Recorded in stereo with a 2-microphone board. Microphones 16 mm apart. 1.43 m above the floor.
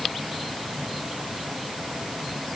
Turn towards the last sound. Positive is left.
No sound to turn to.